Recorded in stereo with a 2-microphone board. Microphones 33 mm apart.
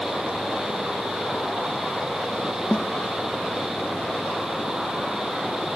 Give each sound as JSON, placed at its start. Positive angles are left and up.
{"t": 2.7, "sound": "a snare drum", "side_deg": 50}